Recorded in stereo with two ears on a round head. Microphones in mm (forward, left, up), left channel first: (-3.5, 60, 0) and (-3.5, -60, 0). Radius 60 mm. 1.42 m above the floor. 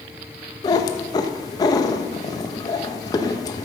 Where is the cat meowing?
30° left (ahead or behind), 0.7 m.